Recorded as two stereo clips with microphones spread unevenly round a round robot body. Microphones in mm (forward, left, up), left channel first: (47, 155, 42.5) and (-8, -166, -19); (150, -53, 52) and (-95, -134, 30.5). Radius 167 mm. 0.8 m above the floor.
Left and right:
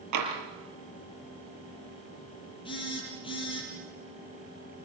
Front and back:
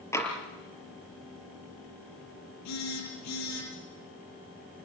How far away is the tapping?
About 6 m.